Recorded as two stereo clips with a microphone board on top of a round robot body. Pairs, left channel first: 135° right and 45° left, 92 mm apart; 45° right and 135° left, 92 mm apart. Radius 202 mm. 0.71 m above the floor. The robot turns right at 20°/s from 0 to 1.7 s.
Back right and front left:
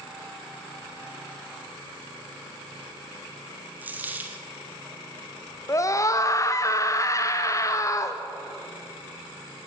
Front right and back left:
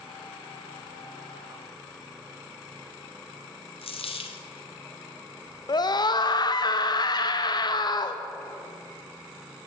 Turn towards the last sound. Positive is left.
turn(degrees=-80)